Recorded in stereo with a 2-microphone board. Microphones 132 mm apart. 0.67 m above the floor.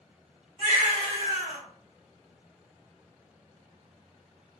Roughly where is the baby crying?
Right.